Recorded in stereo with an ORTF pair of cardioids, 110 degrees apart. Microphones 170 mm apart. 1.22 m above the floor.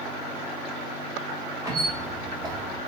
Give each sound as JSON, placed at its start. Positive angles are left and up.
{"t": 1.6, "sound": "a squeak", "azimuth_deg": -20, "distance_m": 0.9}